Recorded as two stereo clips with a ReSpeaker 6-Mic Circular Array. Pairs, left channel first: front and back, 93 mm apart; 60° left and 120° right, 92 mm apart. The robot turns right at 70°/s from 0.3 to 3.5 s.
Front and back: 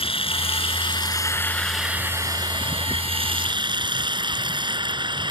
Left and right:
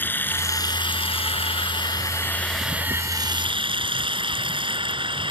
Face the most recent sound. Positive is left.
turn(degrees=-145)